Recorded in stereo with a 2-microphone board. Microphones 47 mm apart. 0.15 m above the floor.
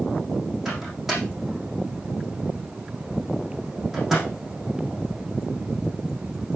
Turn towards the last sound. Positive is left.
turn(degrees=-5)  # may be behind; listen again after turning